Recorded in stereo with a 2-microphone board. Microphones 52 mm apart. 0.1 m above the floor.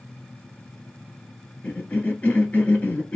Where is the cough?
25° left (ahead or behind), 1.3 m.